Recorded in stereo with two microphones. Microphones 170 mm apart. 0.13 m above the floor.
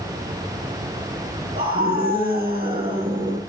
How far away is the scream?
About 2 m.